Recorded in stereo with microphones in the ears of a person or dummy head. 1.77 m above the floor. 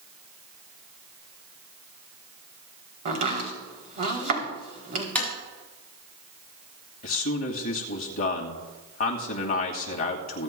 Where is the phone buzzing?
I don't hear a phone buzzing.